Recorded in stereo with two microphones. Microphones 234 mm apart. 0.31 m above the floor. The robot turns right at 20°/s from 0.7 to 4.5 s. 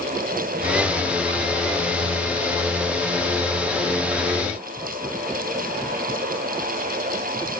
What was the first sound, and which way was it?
Only background noise.